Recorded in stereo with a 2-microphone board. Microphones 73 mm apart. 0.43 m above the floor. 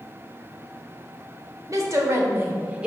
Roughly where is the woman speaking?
Right.